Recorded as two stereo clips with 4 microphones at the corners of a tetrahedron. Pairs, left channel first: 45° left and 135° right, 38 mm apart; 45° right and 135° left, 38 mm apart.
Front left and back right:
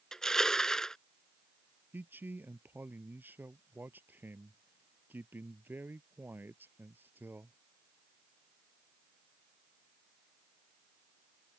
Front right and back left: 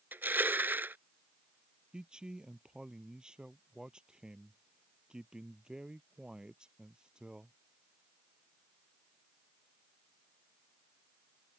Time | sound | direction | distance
0.1 | crushing | 120° left | ?
1.9 | a man speaking | 155° right | ?